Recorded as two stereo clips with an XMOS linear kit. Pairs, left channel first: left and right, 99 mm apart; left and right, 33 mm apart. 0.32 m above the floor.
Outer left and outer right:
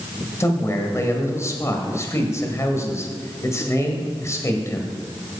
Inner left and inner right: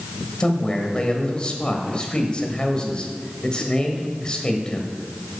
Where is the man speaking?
30° left (ahead or behind), 1.6 m.